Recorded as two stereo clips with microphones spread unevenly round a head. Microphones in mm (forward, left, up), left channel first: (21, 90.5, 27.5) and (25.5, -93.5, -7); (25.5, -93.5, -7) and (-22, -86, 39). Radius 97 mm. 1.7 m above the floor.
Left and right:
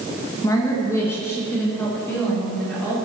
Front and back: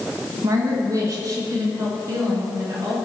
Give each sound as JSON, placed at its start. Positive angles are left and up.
{"t": 0.4, "sound": "a woman speaking", "azimuth_deg": 165, "distance_m": 1.8}